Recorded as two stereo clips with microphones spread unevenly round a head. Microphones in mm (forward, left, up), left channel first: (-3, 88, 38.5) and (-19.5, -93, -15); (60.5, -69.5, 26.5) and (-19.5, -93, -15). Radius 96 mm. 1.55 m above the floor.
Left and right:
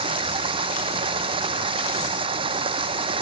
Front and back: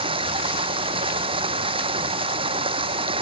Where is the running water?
160° right.